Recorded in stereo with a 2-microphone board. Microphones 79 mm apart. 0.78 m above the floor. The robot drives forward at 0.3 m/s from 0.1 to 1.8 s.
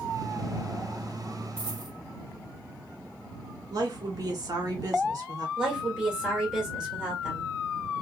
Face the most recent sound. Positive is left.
turn(degrees=-10)  # may be behind; listen again after turning